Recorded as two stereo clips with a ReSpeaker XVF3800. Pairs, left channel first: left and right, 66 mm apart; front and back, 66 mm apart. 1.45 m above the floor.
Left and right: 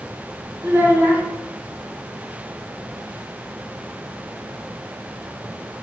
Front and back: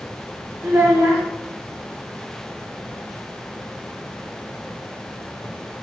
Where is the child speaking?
135° right, 1.0 m.